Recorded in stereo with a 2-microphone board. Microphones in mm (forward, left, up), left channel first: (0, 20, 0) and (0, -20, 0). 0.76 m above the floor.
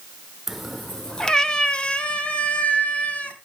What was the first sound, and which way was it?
A cat meowing, 5° right (ahead or behind).